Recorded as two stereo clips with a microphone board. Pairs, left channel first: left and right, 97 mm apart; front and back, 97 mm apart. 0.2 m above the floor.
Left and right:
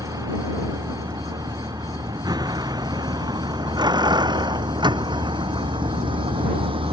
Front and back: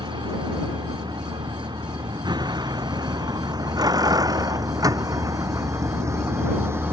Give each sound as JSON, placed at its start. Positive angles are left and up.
{"t": 0.0, "sound": "a vehicle", "azimuth_deg": -140}